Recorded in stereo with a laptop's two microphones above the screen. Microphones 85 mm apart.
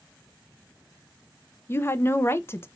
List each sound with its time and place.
1.7 s a woman speaking: 25° left (ahead or behind), 0.5 m